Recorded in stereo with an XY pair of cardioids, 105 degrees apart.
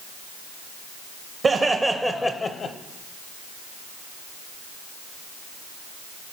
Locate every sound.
1.4 s laughter: 40° right, 1.0 m; by 2.8 s 60° left, 0.9 m